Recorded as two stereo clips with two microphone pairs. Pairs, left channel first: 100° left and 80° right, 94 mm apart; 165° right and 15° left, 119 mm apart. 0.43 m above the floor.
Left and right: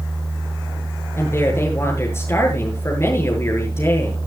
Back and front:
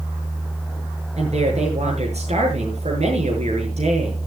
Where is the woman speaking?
40° left, 7.5 m.